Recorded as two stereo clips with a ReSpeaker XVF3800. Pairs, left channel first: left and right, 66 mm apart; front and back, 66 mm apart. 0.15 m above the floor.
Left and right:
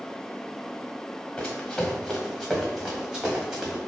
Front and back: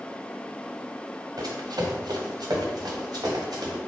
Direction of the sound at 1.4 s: 170° left.